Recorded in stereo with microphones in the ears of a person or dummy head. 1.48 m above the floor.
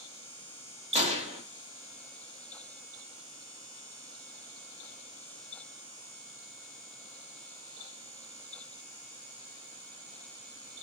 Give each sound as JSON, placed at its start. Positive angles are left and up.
{"t": 0.9, "sound": "a gunshot", "side_deg": -30, "distance_m": 0.5}